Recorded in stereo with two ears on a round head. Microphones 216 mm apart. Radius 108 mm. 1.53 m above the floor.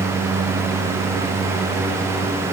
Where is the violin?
I don't hear a violin.